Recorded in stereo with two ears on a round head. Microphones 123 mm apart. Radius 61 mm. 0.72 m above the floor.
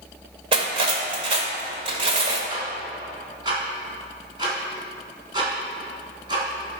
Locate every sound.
0.5 s cutlery clinking: 40° right (ahead or behind), 1.6 m
2.5 s ticking: 35° right (ahead or behind), 3.5 m